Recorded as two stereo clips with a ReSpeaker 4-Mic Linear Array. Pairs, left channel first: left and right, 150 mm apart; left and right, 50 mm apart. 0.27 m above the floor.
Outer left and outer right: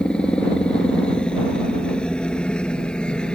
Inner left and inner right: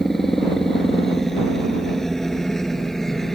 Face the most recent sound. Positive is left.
turn(degrees=5)  # may be behind; listen again after turning